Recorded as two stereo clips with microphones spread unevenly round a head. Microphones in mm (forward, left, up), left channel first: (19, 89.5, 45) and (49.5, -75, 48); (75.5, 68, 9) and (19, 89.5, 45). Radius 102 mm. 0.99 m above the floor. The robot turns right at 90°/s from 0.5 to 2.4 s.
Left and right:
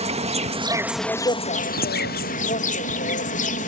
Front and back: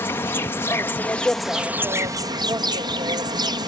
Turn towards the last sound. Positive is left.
turn(degrees=140)